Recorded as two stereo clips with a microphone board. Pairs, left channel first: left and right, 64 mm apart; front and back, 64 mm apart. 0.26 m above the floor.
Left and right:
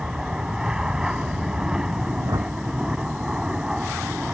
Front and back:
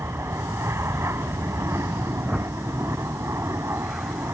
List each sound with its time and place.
0.0 s an aircraft: 165° right
2.2 s a whoosh: 100° right